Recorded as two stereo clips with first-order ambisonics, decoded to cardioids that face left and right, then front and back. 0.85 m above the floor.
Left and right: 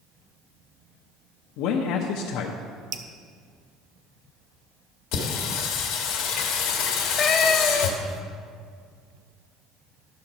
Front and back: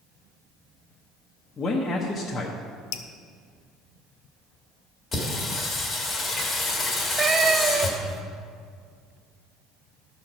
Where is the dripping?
35° right, 0.6 m.